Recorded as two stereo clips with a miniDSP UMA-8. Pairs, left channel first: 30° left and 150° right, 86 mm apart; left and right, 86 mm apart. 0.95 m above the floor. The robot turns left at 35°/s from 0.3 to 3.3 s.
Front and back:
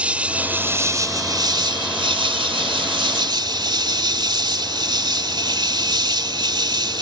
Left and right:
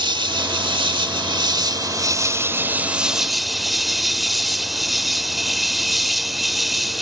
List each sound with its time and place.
0.0 s an insect: 75° right; by 7.0 s straight behind